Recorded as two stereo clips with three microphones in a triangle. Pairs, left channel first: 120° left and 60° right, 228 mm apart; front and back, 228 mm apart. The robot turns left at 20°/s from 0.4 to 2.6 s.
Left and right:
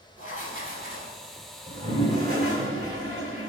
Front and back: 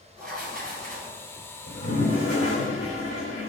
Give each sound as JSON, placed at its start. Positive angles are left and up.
{"t": 0.2, "sound": "writing", "azimuth_deg": 160, "distance_m": 1.1}
{"t": 1.7, "sound": "a toilet flushing", "azimuth_deg": 5, "distance_m": 1.6}